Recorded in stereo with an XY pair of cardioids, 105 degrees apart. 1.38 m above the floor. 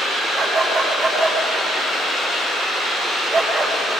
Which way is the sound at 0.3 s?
60° right.